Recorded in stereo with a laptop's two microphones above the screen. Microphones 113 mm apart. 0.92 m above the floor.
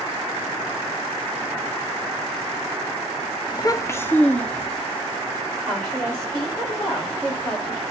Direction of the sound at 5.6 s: 5° left (ahead or behind).